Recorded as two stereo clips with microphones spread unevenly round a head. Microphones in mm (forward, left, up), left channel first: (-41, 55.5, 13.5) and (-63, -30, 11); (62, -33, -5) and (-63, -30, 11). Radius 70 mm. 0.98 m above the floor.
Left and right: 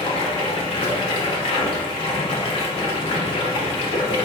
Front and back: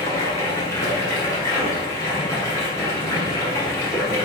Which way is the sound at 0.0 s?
65° left.